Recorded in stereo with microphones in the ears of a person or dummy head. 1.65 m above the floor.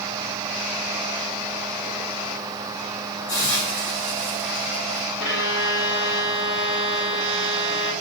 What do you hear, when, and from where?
3.3 s a hiss: 10° left (ahead or behind), 1.5 m
5.2 s a violin: 30° left (ahead or behind), 1.9 m